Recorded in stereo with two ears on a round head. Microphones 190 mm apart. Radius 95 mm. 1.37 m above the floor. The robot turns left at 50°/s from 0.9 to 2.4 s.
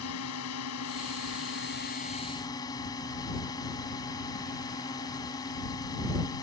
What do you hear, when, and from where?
0.0 s a drone: 95° left; by 6.4 s 20° left